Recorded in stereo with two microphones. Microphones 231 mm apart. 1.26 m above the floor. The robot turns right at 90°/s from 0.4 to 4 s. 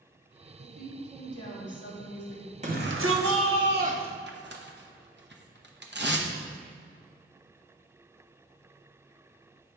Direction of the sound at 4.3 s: 50° right (ahead or behind).